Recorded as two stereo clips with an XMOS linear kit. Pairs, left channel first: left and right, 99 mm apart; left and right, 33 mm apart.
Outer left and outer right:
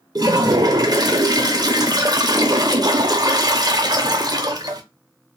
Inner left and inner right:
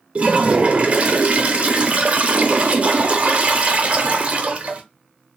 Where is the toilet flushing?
40° right (ahead or behind), 0.6 m.